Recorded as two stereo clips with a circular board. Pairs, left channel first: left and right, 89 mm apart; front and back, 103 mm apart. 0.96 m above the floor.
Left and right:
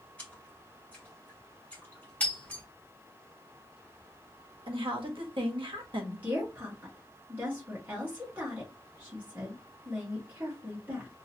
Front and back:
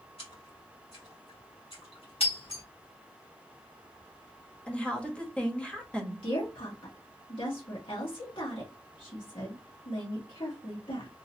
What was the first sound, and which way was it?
A splash, 20° left.